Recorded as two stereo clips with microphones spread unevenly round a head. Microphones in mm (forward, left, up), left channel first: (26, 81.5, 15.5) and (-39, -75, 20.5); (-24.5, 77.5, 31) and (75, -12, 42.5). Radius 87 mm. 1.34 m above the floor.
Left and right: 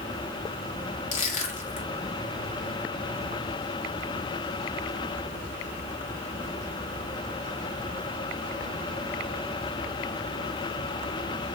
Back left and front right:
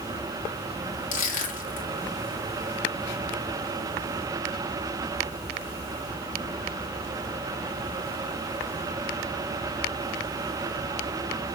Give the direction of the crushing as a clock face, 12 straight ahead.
8 o'clock.